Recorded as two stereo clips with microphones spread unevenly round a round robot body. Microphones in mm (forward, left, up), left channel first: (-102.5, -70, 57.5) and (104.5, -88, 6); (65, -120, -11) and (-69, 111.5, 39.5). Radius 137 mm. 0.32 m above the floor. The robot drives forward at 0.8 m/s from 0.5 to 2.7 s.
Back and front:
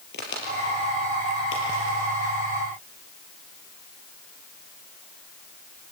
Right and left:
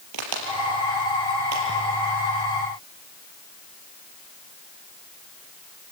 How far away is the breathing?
I don't hear breathing.